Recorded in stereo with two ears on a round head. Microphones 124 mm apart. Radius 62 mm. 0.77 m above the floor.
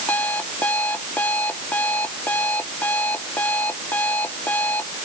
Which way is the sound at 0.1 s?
10° left (ahead or behind).